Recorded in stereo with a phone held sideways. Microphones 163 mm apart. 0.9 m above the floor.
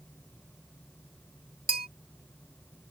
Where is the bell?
65° right (ahead or behind).